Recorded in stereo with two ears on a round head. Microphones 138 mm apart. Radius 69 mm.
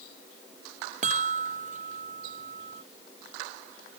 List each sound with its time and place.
1.0 s a chime: 50° right (ahead or behind)